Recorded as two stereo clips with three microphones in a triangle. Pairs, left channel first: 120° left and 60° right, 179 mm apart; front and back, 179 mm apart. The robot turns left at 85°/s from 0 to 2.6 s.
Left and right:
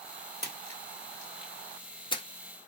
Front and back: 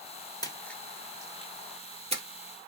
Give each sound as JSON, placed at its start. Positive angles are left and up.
{"t": 0.4, "sound": "a splash", "azimuth_deg": -55, "distance_m": 0.9}